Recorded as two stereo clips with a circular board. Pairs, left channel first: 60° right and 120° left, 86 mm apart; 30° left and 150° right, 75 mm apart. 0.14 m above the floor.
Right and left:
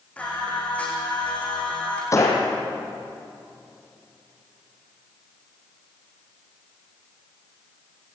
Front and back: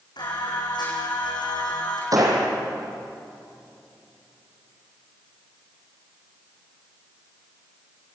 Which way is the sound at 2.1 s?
110° right.